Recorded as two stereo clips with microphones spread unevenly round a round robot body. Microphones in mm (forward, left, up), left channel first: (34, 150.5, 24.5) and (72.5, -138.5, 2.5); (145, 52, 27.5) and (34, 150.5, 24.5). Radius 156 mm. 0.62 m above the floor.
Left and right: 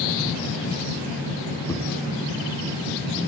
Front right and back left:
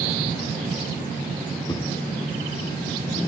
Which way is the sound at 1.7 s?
20° left.